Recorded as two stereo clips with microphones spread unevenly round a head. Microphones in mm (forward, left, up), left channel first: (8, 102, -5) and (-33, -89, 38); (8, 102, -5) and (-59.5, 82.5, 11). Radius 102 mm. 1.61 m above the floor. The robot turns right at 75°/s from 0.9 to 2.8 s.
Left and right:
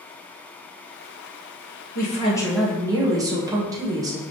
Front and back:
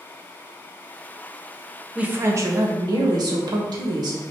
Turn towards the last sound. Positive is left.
turn(degrees=-175)